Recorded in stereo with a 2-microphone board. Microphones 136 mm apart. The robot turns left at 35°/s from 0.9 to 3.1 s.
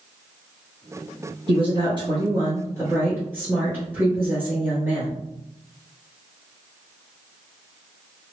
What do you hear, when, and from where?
1.5 s a woman speaking: 100° right, 1.5 m; by 5.2 s 155° right, 1.5 m